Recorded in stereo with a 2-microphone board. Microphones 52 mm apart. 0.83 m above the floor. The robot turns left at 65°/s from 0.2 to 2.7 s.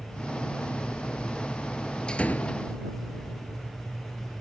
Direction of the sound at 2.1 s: 165° left.